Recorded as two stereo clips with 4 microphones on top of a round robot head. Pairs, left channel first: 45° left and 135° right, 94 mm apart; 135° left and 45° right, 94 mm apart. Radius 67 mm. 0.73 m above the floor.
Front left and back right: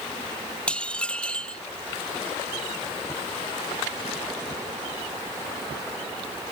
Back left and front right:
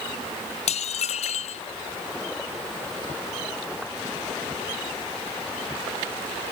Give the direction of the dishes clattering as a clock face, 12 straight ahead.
8 o'clock.